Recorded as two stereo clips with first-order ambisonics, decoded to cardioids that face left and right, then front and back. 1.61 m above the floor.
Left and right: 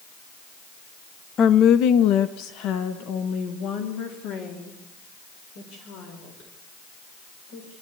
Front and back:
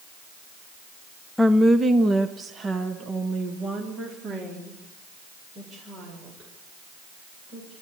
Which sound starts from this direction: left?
A woman speaking, at 1.4 s.